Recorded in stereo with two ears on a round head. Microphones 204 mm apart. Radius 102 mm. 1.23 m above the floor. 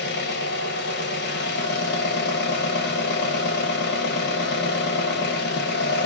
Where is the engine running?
50° left (ahead or behind), 0.8 m.